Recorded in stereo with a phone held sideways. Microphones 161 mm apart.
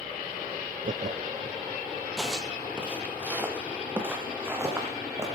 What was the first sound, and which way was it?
Laughter, 50° right (ahead or behind).